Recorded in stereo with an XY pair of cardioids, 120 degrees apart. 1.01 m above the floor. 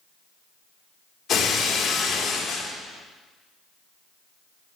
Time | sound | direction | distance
1.3 | breaking glass | 55° left | 1.4 m